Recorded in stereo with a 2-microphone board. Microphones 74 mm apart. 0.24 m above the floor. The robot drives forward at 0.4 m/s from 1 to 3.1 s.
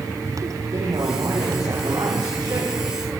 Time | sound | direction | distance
0.7 | a man speaking | 70° right (ahead or behind) | 8.5 m